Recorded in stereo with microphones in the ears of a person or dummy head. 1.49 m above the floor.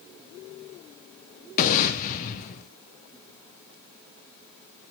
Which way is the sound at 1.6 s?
45° left (ahead or behind).